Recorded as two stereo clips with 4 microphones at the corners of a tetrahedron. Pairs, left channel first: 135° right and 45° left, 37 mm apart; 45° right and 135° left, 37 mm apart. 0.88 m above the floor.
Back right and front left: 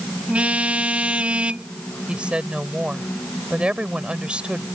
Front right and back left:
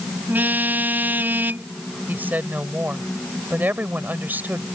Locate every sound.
0.3 s a car horn: 100° left
2.1 s a woman speaking: 105° left